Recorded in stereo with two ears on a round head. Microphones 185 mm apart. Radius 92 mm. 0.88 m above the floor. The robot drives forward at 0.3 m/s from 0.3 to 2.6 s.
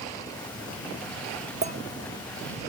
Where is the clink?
35° right (ahead or behind), 1.2 m.